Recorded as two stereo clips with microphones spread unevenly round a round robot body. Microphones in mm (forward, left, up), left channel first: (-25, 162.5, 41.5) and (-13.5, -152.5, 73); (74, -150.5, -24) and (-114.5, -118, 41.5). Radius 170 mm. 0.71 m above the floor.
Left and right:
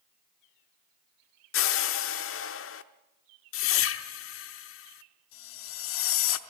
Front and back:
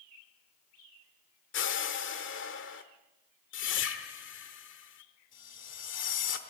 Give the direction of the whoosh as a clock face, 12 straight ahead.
11 o'clock.